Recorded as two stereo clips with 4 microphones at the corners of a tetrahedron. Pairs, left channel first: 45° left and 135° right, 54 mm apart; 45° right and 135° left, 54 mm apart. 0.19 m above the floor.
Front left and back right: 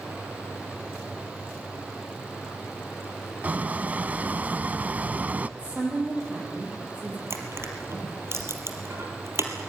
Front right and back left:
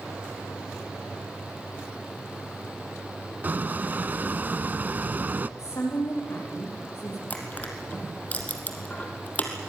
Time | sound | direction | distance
3.4 | a squeak | 175° left | 0.7 m
5.6 | a woman speaking | 75° right | 7.5 m
7.3 | crushing | 105° right | 3 m